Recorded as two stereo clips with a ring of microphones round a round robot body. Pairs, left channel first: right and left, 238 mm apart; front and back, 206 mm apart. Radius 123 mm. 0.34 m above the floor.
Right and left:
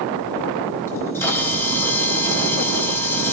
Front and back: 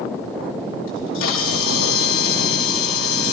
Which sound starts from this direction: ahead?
A camera shutter, at 0.9 s.